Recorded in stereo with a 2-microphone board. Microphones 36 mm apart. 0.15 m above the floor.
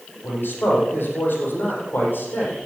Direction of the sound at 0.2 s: 75° left (ahead or behind).